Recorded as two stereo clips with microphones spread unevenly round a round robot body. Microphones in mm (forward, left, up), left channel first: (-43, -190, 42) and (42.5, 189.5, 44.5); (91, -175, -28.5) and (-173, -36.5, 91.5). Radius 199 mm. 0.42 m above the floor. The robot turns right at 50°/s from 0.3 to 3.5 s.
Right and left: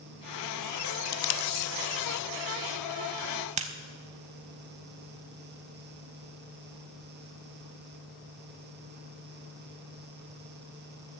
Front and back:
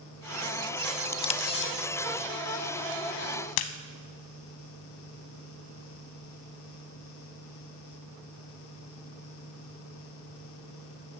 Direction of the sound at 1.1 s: 115° right.